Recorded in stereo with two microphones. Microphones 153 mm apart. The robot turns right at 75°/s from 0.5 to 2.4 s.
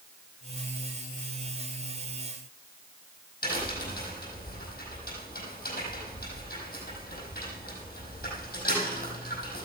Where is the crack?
90° left, 5 m.